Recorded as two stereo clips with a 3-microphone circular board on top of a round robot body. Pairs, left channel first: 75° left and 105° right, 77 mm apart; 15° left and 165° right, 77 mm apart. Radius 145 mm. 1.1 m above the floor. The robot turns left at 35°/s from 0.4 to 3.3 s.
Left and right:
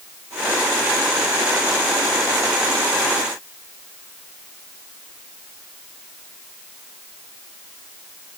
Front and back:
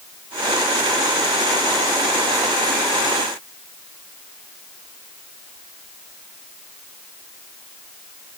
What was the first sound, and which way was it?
Only background noise.